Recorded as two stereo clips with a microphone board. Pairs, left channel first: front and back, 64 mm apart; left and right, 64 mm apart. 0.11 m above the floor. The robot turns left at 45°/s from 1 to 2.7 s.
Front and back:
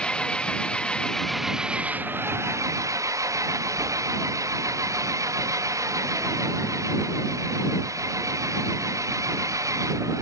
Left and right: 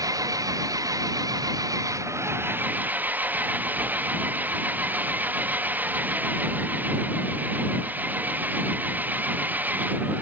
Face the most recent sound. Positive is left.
turn(degrees=-150)